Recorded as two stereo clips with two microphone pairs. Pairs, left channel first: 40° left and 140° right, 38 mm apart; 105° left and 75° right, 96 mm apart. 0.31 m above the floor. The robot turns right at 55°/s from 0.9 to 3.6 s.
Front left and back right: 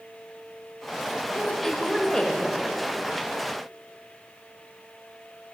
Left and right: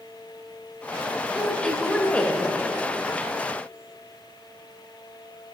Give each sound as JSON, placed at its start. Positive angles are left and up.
{"t": 1.3, "sound": "a woman speaking", "azimuth_deg": 10, "distance_m": 1.4}